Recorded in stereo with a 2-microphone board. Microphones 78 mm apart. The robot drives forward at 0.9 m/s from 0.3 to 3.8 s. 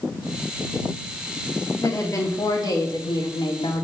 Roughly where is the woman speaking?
Left.